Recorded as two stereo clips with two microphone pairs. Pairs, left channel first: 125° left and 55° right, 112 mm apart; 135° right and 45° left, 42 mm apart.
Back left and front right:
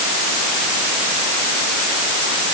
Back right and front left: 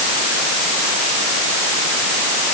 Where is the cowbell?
No cowbell in this recording.